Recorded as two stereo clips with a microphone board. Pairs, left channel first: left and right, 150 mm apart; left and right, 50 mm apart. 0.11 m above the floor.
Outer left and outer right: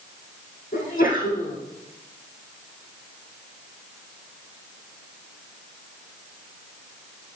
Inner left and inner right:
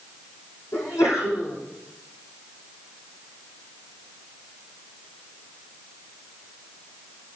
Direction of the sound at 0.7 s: 70° left (ahead or behind).